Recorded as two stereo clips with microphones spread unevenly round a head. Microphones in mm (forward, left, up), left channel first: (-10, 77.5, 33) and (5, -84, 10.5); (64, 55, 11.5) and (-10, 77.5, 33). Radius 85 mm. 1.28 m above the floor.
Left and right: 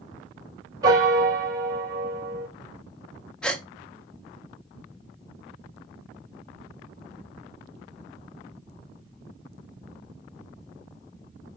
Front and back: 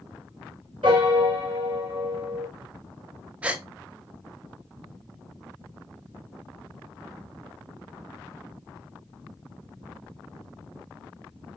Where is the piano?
155° right, 3 m.